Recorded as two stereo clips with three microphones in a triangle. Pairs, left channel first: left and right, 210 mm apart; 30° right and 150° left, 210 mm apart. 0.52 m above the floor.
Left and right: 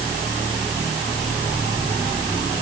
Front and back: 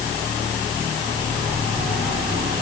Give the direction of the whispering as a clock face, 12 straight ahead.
No whispering in this recording.